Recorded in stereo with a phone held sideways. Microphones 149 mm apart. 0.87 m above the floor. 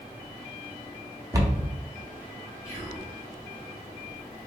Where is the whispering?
20° left (ahead or behind), 1.1 m.